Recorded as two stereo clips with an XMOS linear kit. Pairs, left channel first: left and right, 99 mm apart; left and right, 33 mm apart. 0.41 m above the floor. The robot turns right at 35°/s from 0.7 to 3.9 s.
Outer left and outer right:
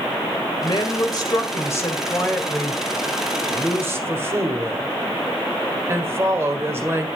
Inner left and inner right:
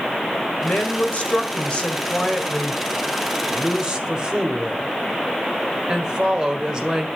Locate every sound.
0.6 s a woman speaking: 105° left, 1.7 m; by 7.1 s 145° right, 1.7 m